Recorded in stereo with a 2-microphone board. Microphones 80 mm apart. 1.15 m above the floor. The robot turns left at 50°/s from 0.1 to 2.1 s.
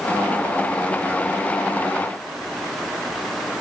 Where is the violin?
No violin in this recording.